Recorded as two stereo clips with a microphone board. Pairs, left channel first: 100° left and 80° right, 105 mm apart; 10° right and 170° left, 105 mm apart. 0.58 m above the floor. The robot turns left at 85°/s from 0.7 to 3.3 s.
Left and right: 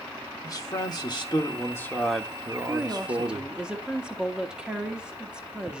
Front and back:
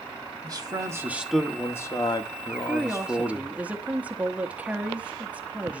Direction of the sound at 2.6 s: 80° right.